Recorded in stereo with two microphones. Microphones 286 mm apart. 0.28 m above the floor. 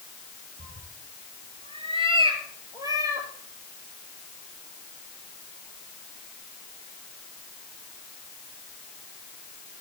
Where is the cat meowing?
35° right (ahead or behind), 1.9 m; by 3.3 s 10° right (ahead or behind), 3.5 m.